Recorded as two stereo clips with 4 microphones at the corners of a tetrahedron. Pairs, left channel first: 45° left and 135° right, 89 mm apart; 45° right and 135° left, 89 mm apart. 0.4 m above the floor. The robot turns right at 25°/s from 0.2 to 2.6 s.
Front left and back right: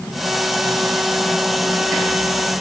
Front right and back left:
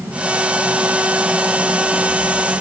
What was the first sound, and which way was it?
Only background noise.